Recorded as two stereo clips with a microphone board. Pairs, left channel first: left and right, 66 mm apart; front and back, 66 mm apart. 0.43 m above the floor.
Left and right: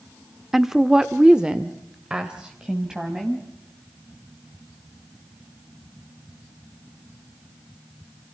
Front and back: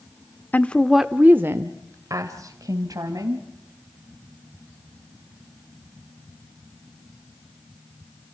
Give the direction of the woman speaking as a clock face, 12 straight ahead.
12 o'clock.